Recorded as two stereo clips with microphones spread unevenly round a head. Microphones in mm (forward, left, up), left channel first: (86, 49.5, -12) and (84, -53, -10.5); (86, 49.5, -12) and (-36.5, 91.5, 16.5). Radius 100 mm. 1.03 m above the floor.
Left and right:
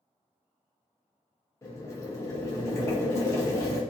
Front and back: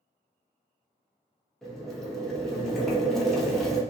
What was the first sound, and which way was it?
Boiling, 50° left.